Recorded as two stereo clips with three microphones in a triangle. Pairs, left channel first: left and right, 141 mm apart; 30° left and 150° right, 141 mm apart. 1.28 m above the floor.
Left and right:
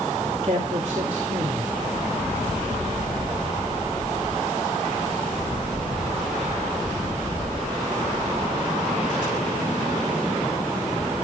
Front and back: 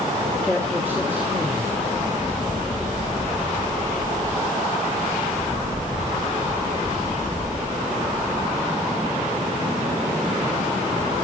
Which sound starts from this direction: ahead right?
A man speaking, at 0.4 s.